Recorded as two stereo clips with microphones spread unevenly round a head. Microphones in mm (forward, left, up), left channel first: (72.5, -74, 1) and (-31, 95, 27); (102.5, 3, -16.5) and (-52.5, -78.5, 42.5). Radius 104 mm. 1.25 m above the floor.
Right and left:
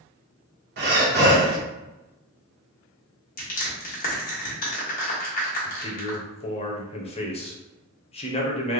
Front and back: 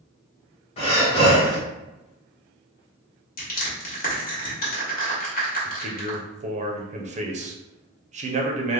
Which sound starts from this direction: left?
Breathing, at 0.8 s.